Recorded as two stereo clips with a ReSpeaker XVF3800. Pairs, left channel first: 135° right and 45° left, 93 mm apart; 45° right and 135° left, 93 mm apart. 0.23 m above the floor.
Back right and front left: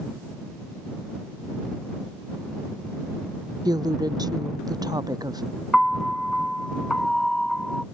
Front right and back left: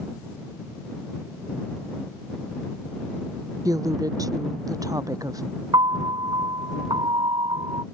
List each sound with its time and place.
3.6 s a woman speaking: 90° left
5.7 s a piano: 140° left